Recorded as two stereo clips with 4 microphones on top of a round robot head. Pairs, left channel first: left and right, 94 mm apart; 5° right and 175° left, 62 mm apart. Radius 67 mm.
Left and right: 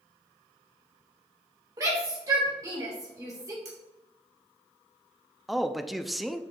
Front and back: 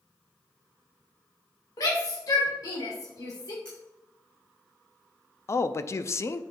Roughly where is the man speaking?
Ahead.